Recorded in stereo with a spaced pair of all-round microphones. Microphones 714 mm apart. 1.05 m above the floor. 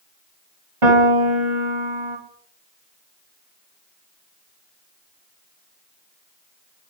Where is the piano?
45° right (ahead or behind), 2 m.